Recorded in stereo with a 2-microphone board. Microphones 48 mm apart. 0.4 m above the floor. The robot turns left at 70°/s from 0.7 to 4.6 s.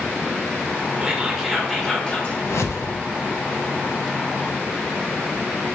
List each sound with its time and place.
1.0 s whispering: 140° right, 0.8 m; by 2.4 s 125° left, 0.8 m
2.5 s a whoosh: 80° left, 0.6 m; by 2.9 s 60° left (ahead or behind), 0.6 m